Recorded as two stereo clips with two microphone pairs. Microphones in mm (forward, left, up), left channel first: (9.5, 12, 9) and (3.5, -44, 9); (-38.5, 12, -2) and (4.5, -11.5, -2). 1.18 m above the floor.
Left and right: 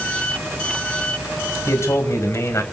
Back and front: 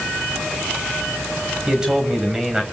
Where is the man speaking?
50° left, 6.5 m.